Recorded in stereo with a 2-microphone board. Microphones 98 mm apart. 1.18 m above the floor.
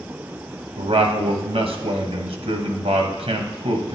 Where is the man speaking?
80° right, 0.9 m.